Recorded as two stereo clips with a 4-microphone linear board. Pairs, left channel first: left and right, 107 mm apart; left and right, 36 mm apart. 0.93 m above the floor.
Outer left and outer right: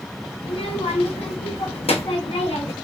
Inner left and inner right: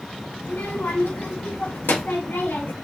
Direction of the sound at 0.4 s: 75° left (ahead or behind).